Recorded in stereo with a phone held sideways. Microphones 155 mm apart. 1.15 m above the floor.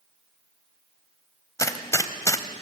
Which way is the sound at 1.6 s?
20° left (ahead or behind).